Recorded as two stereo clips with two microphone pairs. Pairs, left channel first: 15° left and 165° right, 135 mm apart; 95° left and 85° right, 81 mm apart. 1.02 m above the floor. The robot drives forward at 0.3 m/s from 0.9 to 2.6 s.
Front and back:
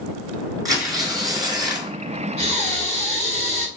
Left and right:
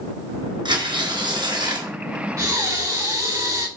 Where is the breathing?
135° right, 3.5 m.